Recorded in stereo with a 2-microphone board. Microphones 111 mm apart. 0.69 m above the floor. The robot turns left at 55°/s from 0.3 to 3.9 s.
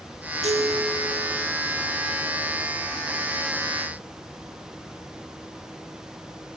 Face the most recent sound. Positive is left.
turn(degrees=70)